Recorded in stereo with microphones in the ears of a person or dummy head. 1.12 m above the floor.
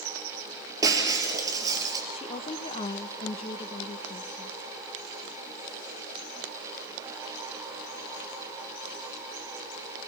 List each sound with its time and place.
0.8 s breaking glass: 25° right (ahead or behind), 5 m
2.1 s a woman speaking: 35° left (ahead or behind), 0.9 m